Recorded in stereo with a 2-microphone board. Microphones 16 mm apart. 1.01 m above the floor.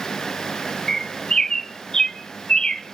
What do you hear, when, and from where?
0.9 s a bird: 30° left (ahead or behind), 0.8 m